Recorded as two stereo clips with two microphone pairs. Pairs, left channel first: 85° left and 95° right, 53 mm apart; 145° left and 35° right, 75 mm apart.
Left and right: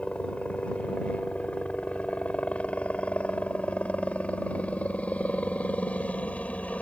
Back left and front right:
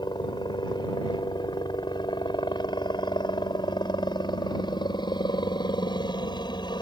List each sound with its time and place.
0.0 s a helicopter: 150° left